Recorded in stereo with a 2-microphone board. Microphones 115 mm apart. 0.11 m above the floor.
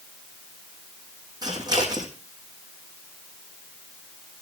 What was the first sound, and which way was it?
Scissors, 35° right (ahead or behind).